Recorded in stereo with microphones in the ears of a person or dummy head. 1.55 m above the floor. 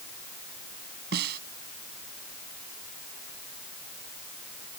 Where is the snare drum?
65° right (ahead or behind).